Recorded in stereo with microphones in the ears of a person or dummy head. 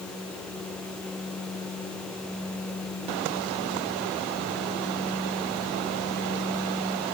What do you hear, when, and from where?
Only background noise.